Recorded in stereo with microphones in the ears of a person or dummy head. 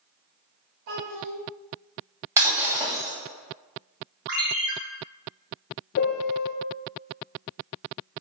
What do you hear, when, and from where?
0.9 s a child speaking: 65° right (ahead or behind), 2 m
2.4 s breaking glass: 15° right (ahead or behind), 2 m
4.3 s a ringtone: 50° right (ahead or behind), 1.3 m
6.0 s a piano: 55° left (ahead or behind), 0.8 m